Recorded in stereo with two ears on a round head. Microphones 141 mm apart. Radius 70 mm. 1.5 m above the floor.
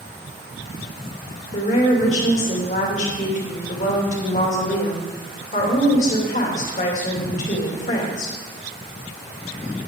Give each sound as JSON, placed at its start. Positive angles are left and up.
{"t": 1.5, "sound": "a woman speaking", "side_deg": 50, "distance_m": 2.5}